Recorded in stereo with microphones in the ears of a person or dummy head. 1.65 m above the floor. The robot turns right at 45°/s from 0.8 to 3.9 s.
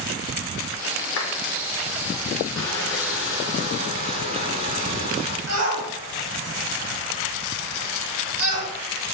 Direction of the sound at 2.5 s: 160° left.